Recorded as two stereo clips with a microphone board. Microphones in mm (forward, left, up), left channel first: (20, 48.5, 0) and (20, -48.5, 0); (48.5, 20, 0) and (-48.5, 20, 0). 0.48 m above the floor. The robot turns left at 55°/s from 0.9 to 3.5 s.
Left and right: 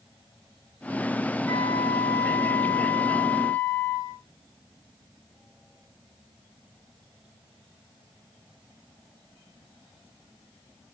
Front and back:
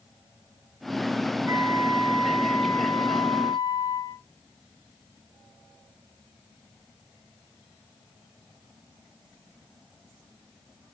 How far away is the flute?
About 1.8 m.